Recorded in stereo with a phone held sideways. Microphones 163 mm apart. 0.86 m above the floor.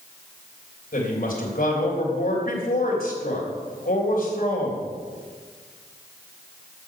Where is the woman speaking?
65° left (ahead or behind), 3 m.